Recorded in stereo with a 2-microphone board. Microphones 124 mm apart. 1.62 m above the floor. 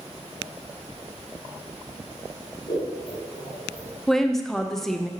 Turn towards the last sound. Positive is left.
turn(degrees=5)  # may be behind; listen again after turning